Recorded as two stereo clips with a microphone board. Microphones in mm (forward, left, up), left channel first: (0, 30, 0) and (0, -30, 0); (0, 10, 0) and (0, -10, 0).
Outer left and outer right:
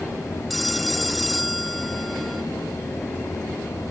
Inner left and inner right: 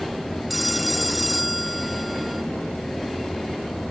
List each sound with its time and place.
0.5 s a phone ringing: centre (ahead or behind)